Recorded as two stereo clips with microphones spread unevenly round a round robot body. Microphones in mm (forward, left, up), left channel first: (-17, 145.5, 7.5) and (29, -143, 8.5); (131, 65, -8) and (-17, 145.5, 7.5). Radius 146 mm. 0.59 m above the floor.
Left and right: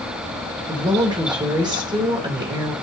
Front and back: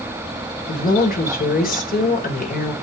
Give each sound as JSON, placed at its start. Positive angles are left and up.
{"t": 0.7, "sound": "a woman speaking", "azimuth_deg": -5, "distance_m": 2.5}